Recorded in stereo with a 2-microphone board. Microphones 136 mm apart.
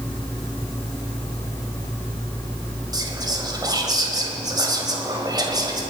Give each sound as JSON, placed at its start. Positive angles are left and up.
{"t": 2.9, "sound": "whispering", "side_deg": -30, "distance_m": 1.8}